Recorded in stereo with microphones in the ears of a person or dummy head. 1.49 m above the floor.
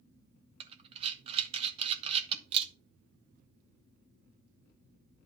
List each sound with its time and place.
0.6 s breathing: 30° right (ahead or behind), 1.0 m